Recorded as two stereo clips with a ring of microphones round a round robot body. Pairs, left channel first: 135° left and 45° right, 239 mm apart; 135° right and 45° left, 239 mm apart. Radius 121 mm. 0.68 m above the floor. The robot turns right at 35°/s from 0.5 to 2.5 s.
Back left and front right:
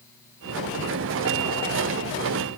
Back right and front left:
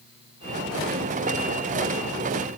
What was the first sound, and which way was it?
Only background noise.